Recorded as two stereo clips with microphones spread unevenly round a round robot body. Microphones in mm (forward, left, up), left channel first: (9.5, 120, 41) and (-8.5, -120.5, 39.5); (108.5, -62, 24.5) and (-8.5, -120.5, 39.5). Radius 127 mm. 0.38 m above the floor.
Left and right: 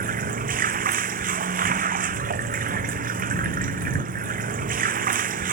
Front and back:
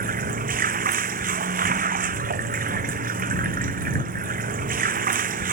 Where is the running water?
150° right.